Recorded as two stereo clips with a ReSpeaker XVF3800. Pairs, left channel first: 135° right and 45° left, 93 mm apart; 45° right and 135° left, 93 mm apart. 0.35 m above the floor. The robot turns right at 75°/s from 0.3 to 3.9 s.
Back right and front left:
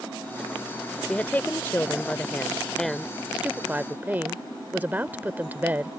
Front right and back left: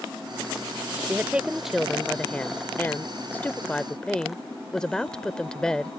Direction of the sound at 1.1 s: 170° left.